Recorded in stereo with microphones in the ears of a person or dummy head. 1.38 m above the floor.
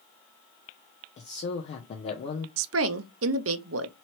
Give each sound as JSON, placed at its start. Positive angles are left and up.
{"t": 1.2, "sound": "a man speaking", "side_deg": 35, "distance_m": 0.7}
{"t": 2.6, "sound": "a woman speaking", "side_deg": -75, "distance_m": 0.6}